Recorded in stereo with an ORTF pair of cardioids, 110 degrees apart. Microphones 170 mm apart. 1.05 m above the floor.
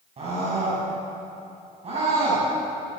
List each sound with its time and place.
0.2 s a scream: 40° right, 9.5 m